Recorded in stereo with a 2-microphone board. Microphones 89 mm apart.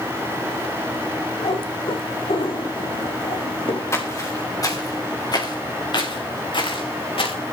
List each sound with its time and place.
1.4 s a cat meowing: 75° left (ahead or behind), 3.5 m; by 3.8 s 80° left, 2.5 m
3.9 s footsteps: 30° left (ahead or behind), 3.5 m; by 7.3 s 75° left (ahead or behind), 3.5 m